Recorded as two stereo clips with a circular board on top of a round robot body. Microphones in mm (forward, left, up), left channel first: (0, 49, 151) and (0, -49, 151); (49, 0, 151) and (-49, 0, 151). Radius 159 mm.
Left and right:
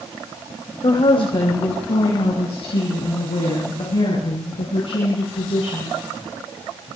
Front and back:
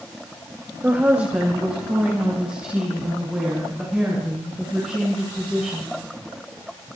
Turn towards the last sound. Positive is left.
turn(degrees=95)